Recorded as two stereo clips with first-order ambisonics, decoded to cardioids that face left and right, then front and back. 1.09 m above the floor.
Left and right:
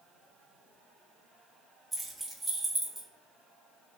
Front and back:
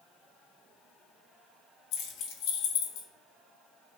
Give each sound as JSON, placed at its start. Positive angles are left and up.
{"t": 1.9, "sound": "keys jangling", "azimuth_deg": 0, "distance_m": 0.7}